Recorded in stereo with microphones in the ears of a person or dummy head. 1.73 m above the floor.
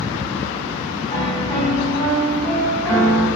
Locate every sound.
1.1 s a piano: 10° left (ahead or behind), 1.6 m